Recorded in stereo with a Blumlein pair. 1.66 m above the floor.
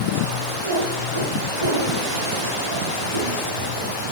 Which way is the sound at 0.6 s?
70° right.